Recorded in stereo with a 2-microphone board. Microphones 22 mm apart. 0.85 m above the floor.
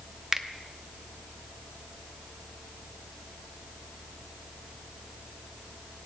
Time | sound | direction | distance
0.3 | a finger snap | 15° right (ahead or behind) | 0.8 m